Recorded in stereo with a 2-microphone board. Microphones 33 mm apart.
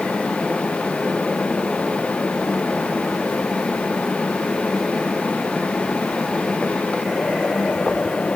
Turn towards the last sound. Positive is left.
No sound to turn to.